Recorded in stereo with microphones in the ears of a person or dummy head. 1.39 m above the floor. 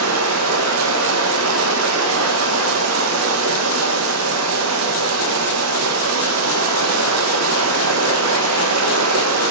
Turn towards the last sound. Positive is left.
turn(degrees=-80)